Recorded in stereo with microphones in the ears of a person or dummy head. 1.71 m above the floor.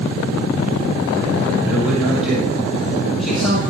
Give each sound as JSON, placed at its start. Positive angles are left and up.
{"t": 1.6, "sound": "a man speaking", "side_deg": -5, "distance_m": 7.5}